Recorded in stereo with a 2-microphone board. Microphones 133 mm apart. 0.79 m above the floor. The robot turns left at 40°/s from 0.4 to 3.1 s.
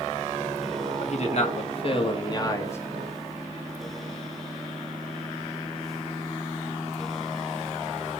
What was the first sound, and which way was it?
A man speaking, 95° left.